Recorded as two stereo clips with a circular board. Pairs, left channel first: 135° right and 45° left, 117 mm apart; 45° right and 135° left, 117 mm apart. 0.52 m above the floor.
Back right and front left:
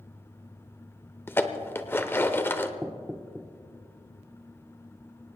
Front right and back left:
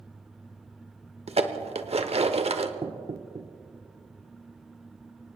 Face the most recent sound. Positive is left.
turn(degrees=125)